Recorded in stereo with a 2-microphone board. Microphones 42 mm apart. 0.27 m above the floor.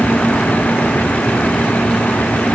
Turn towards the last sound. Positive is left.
No sound to turn to.